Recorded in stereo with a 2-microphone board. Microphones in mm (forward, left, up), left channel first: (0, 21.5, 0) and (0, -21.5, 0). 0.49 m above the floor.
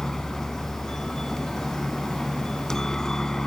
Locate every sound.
0.0 s a helicopter: 15° left (ahead or behind)